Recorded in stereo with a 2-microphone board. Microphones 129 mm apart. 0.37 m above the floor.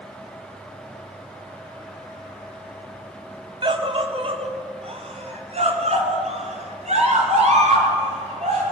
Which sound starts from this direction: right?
A scream, at 3.6 s.